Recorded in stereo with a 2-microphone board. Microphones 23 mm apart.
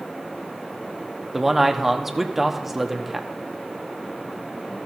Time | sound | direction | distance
1.3 | a man speaking | 10° right (ahead or behind) | 1.0 m